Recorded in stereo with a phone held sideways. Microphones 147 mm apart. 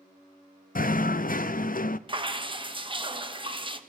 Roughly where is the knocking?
Left.